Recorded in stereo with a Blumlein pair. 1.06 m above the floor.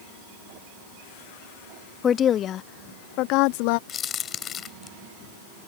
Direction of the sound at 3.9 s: 25° left.